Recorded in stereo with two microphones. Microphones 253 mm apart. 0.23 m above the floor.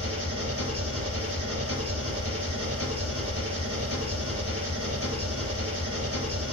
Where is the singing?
No singing in this recording.